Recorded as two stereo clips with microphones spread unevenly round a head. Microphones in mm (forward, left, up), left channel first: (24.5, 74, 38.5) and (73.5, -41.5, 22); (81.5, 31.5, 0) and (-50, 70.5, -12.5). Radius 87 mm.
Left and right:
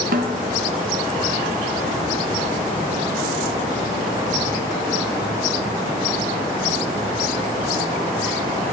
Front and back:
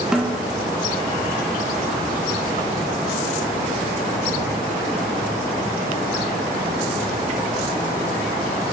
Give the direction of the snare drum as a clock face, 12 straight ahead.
4 o'clock.